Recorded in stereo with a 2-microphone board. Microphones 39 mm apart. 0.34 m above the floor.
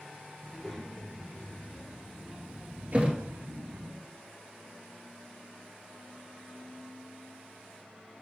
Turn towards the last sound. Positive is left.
turn(degrees=-30)  # may be behind; listen again after turning